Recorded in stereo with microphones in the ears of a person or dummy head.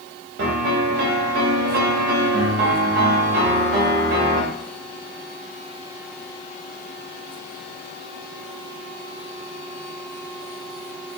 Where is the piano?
50° right (ahead or behind), 0.8 m.